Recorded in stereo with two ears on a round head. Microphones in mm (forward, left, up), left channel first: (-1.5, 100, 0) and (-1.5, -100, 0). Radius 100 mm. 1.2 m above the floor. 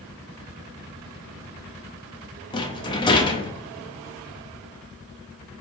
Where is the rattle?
20° left (ahead or behind), 0.5 m.